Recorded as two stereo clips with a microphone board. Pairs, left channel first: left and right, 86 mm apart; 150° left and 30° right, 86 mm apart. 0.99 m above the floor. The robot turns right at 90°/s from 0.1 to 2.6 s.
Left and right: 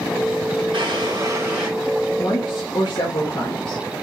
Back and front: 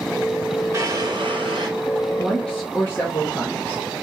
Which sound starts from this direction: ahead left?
A woman speaking, at 2.2 s.